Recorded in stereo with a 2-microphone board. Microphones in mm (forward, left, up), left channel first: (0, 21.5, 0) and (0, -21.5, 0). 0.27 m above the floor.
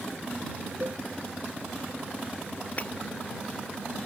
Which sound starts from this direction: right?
A cowbell, at 0.8 s.